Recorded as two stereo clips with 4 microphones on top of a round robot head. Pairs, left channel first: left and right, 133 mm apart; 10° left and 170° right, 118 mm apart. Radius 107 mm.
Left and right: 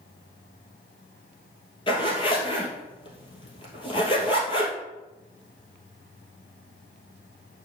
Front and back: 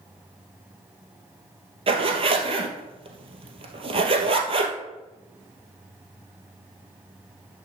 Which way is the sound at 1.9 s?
150° left.